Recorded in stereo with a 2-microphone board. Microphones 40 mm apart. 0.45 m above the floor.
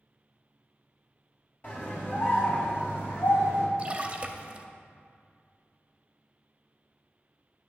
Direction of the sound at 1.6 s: 45° left (ahead or behind).